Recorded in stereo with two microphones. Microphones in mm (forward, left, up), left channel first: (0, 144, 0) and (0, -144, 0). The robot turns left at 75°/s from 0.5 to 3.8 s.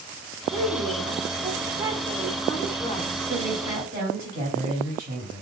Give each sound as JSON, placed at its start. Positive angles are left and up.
{"t": 0.5, "sound": "a woman speaking", "side_deg": -20, "distance_m": 0.6}
{"t": 3.3, "sound": "a woman speaking", "azimuth_deg": 5, "distance_m": 1.6}